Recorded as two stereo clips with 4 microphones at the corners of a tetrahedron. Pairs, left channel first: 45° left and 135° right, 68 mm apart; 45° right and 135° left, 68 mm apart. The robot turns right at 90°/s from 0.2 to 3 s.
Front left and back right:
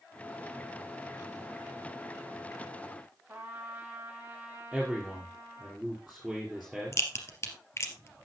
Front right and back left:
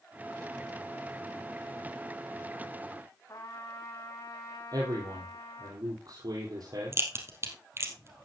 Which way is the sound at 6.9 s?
90° left.